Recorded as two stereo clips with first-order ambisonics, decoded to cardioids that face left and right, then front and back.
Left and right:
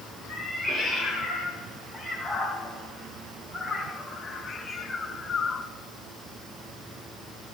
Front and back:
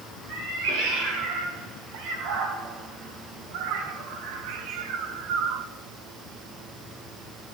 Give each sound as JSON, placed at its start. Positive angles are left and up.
{"t": 0.3, "sound": "a cat meowing", "azimuth_deg": 180, "distance_m": 4.5}